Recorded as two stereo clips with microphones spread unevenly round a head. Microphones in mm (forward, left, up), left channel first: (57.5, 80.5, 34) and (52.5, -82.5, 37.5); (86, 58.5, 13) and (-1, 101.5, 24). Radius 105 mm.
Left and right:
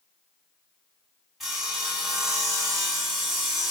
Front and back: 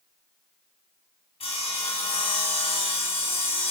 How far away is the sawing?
About 2.5 m.